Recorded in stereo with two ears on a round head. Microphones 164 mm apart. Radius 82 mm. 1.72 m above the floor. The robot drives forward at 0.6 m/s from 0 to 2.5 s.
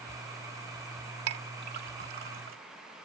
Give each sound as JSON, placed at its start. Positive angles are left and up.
{"t": 1.3, "sound": "a clink", "side_deg": -65}